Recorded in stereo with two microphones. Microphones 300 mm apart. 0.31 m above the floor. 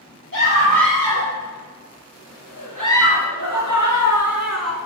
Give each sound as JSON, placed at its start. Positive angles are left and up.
{"t": 0.3, "sound": "a scream", "side_deg": -80, "distance_m": 7.5}